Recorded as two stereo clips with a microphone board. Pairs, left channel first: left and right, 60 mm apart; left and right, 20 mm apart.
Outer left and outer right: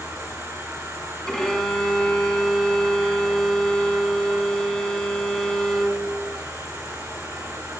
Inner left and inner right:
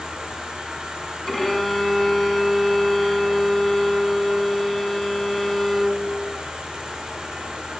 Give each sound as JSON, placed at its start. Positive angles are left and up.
{"t": 0.0, "sound": "an insect", "side_deg": -60, "distance_m": 5.0}
{"t": 1.3, "sound": "a violin", "side_deg": 10, "distance_m": 2.0}